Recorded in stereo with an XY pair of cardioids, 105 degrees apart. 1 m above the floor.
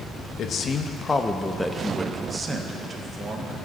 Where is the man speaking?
60° left, 1.0 m; by 3.7 s 45° right, 1.8 m.